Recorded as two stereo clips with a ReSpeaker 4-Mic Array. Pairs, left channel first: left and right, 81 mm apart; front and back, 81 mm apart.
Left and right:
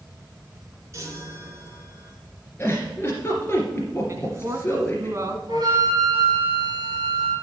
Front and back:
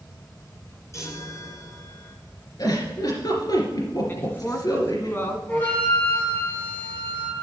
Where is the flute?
65° right, 4.5 m.